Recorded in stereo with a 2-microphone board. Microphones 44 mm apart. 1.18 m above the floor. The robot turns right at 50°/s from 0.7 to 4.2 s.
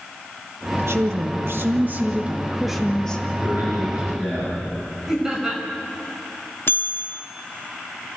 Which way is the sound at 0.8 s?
100° right.